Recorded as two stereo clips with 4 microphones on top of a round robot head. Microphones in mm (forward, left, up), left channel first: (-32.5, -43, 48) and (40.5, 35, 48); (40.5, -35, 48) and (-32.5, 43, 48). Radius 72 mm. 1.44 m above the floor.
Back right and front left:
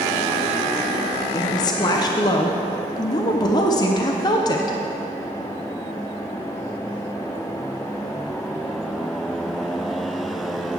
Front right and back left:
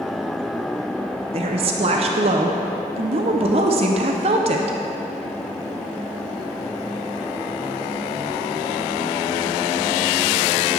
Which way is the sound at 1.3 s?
170° left.